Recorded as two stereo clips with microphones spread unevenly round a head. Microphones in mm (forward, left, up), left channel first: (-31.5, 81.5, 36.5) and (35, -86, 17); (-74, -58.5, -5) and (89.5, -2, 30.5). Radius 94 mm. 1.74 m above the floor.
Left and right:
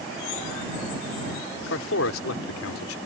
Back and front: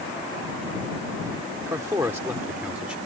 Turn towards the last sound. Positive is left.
turn(degrees=100)